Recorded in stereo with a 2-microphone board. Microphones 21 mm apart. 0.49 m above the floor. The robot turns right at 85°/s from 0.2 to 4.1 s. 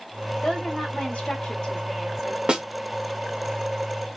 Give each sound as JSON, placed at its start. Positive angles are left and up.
{"t": 0.4, "sound": "a woman speaking", "azimuth_deg": 40, "distance_m": 3.0}
{"t": 2.5, "sound": "a snare drum", "side_deg": -50, "distance_m": 1.2}